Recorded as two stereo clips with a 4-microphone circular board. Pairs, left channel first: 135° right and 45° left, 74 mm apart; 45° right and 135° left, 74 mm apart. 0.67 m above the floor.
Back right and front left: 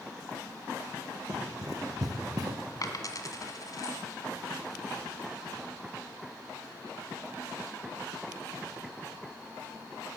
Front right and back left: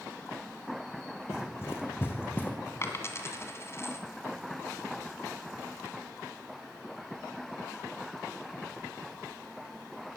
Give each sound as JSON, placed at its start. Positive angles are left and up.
{"t": 1.3, "sound": "running footsteps", "azimuth_deg": 5, "distance_m": 2.5}
{"t": 2.8, "sound": "a dropped coin", "azimuth_deg": -100, "distance_m": 1.6}